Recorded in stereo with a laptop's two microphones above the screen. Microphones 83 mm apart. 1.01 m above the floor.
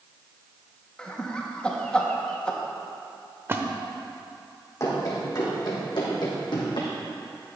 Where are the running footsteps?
40° left (ahead or behind), 3 m; by 6.9 s 70° left (ahead or behind), 3 m.